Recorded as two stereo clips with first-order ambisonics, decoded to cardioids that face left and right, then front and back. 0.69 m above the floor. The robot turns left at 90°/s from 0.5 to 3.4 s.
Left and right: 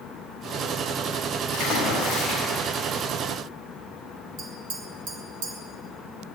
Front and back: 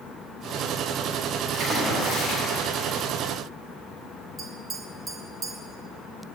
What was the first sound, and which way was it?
A splash, 85° left.